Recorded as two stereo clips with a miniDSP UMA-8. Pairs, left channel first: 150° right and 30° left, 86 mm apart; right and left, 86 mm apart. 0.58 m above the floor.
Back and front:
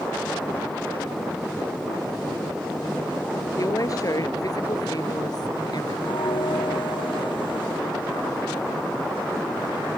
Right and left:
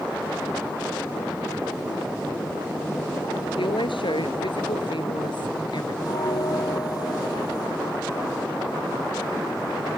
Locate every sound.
3.6 s a woman speaking: 105° right; by 6.0 s 115° right
6.0 s a bell: 130° right